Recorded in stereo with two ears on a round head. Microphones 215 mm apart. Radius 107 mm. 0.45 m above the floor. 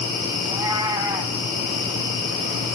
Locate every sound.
0.4 s a cat meowing: 15° right (ahead or behind), 1.7 m